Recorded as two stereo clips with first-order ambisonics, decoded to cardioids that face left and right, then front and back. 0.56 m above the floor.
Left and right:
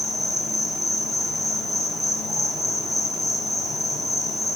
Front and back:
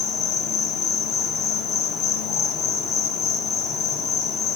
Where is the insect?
5° right, 0.8 m.